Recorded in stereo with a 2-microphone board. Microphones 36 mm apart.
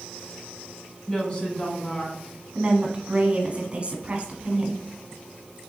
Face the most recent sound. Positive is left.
turn(degrees=-35)  # may be behind; listen again after turning